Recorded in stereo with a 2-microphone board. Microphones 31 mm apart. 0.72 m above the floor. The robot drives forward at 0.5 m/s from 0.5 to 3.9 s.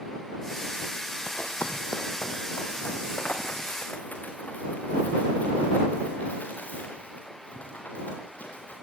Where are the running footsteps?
60° left (ahead or behind), 1.6 m; by 8.7 s 55° left (ahead or behind), 8.5 m.